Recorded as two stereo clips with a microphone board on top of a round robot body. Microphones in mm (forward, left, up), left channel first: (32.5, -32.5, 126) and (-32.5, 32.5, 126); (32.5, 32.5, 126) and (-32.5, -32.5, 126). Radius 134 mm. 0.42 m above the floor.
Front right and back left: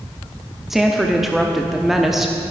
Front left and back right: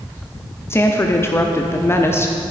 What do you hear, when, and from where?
0.7 s a woman speaking: 50° left, 0.9 m